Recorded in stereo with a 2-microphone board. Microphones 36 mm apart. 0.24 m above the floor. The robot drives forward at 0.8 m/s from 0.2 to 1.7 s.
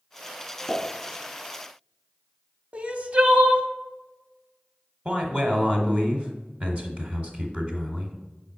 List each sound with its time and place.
0.7 s a pop: 40° left (ahead or behind), 1.6 m
2.7 s crying: 40° right (ahead or behind), 0.5 m
5.0 s a man speaking: 35° right (ahead or behind), 1.2 m